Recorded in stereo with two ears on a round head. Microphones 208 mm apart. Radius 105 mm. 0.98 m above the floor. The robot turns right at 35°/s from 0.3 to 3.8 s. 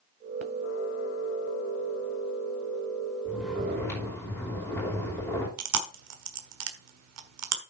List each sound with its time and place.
3.2 s snoring: 10° right (ahead or behind), 5 m; by 5.5 s 10° left (ahead or behind), 5 m
5.6 s chewing: 75° right (ahead or behind), 1.4 m